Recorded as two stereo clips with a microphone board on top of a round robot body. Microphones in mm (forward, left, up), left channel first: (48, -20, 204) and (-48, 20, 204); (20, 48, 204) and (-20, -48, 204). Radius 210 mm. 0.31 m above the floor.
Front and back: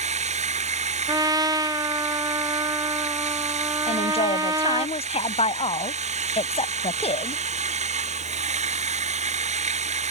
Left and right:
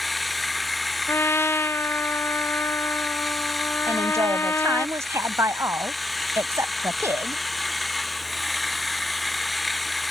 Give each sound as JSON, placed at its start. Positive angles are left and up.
{"t": 0.0, "sound": "running water", "azimuth_deg": 160}
{"t": 1.1, "sound": "a trumpet", "azimuth_deg": 125}
{"t": 3.9, "sound": "a woman speaking", "azimuth_deg": -50}